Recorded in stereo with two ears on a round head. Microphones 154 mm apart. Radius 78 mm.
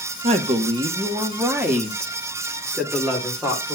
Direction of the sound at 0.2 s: 35° right (ahead or behind).